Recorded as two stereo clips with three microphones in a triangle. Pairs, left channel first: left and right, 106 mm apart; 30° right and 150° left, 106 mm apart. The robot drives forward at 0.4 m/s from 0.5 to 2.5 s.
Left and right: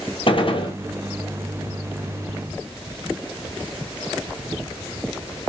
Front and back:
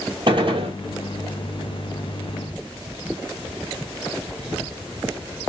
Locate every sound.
0.3 s a gunshot: 115° left, 0.7 m; by 0.8 s 125° left, 0.7 m